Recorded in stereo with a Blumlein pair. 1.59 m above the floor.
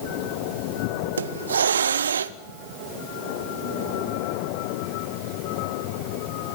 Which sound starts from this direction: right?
A hiss, at 1.2 s.